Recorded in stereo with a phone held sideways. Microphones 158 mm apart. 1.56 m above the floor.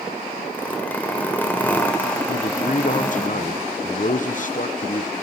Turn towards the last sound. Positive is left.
turn(degrees=55)  # may be behind; listen again after turning